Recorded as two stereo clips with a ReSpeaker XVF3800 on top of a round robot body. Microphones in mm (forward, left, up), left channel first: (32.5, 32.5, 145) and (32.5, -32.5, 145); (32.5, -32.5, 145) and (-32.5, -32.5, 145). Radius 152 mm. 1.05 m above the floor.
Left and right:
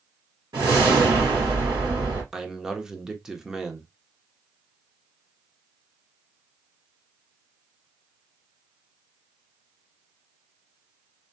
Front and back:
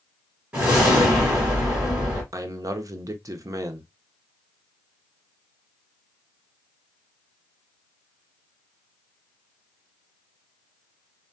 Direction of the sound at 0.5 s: 110° right.